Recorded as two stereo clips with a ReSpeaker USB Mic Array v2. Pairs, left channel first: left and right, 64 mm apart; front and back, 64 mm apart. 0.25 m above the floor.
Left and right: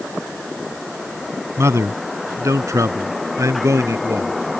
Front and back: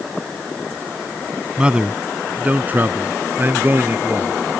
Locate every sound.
1.6 s a man speaking: 110° right; by 4.3 s 125° right